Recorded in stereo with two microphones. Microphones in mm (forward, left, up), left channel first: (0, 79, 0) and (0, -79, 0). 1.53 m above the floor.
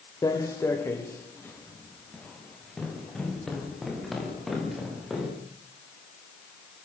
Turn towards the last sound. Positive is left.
turn(degrees=0)  # may be behind; listen again after turning